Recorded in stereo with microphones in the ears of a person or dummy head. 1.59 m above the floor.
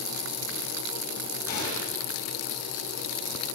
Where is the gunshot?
45° left (ahead or behind), 6 m.